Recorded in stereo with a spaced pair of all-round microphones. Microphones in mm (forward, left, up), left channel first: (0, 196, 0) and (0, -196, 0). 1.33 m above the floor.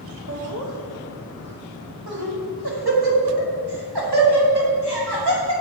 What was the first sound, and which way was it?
Laughter, 45° right (ahead or behind).